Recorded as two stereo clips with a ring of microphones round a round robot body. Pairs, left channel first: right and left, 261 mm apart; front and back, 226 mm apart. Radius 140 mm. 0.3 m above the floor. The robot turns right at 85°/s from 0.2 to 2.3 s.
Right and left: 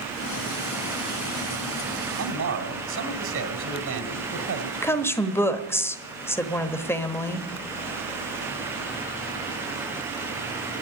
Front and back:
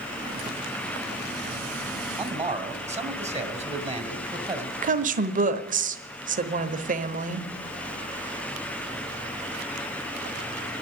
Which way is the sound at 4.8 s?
165° right.